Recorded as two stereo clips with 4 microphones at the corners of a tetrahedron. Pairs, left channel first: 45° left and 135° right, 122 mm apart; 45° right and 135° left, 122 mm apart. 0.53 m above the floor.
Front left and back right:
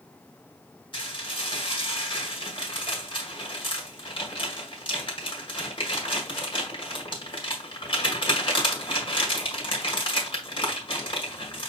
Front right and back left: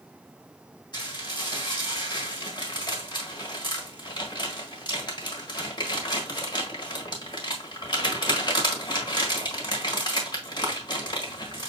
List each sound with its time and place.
0.9 s dishes clattering: straight ahead, 1.3 m